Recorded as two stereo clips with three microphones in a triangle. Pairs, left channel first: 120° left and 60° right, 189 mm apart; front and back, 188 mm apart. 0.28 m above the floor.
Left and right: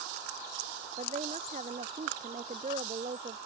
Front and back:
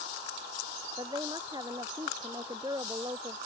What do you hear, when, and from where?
1.0 s a woman speaking: 110° right